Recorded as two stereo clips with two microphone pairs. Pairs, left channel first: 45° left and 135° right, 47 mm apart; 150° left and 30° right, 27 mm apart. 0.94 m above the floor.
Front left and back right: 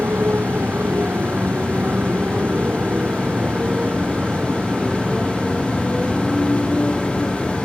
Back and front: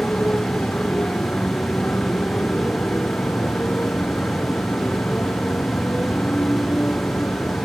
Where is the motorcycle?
175° left; by 7.7 s 130° left.